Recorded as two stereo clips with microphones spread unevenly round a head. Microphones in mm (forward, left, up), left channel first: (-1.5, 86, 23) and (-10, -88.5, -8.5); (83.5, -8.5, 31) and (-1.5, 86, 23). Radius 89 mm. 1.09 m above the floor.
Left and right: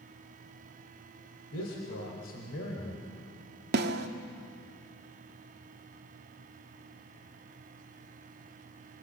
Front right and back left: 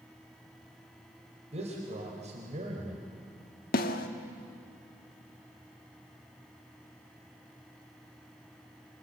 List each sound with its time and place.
1.5 s a man speaking: 95° left, 4 m; by 3.0 s 105° left, 3.5 m
3.7 s a snare drum: 55° right, 1.4 m